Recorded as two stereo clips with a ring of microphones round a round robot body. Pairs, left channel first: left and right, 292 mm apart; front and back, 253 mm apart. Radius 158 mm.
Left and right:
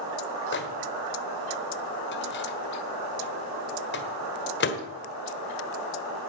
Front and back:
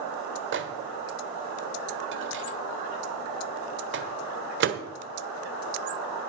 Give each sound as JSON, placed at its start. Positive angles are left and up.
{"t": 0.5, "sound": "a microwave", "azimuth_deg": 140, "distance_m": 1.4}